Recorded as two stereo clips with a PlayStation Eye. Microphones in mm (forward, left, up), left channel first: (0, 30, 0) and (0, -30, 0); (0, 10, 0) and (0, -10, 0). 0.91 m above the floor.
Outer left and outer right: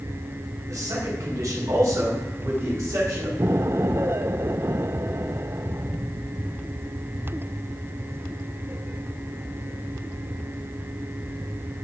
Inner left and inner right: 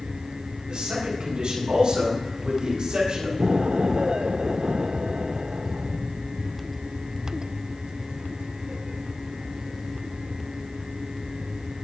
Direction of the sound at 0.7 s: 55° right (ahead or behind).